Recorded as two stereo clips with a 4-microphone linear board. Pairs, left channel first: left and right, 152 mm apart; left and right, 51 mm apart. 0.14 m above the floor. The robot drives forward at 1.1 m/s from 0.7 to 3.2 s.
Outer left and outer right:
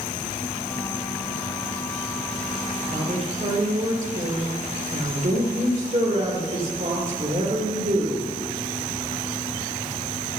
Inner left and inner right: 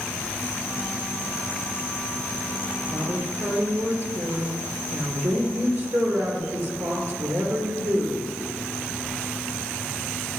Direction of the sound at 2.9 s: 55° right (ahead or behind).